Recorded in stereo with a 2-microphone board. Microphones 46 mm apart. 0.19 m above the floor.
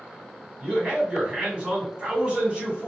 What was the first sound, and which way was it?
A man speaking, 20° right (ahead or behind).